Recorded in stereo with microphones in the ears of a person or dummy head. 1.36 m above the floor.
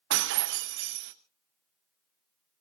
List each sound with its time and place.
0.1 s breaking glass: 55° right (ahead or behind), 0.8 m